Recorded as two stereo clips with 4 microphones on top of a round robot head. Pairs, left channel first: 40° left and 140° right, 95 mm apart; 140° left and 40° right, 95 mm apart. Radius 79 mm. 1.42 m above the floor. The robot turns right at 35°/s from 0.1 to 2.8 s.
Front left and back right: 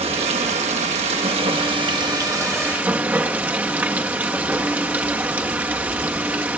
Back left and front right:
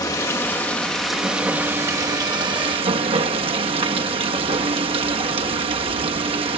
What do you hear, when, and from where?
0.0 s running water: 165° right, 1.3 m; by 6.6 s 70° right, 1.3 m